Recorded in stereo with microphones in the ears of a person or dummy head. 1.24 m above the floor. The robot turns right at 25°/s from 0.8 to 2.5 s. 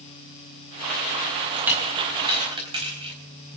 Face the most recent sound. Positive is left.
turn(degrees=-35)  # may be behind; listen again after turning